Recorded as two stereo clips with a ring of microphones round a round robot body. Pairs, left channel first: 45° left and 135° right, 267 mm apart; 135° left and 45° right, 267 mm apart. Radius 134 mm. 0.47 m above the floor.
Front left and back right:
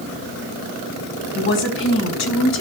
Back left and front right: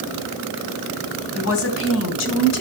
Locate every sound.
1.4 s a woman speaking: 95° left, 4 m; by 2.6 s 90° left, 3 m